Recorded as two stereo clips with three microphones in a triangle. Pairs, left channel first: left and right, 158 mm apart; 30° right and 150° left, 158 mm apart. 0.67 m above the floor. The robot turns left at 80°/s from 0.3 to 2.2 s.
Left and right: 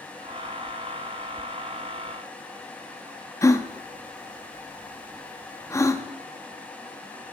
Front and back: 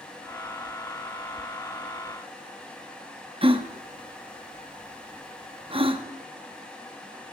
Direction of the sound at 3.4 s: 145° left.